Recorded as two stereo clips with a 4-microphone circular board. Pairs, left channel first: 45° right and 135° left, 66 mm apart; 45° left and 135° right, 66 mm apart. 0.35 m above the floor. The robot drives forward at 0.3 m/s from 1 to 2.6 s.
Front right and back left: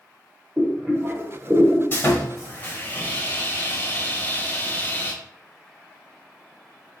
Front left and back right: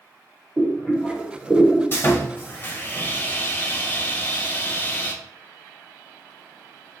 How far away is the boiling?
About 1.3 m.